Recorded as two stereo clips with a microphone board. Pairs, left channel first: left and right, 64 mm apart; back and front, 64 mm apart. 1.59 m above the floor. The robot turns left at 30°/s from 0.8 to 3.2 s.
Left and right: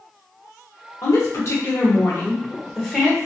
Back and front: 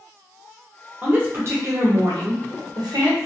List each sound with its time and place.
1.0 s a woman speaking: 60° left, 1.2 m; by 3.3 s 5° right, 1.2 m